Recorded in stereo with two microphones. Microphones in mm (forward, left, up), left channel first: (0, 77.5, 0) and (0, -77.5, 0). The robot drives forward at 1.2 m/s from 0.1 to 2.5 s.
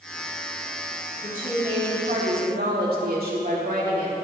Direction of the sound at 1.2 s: 60° right (ahead or behind).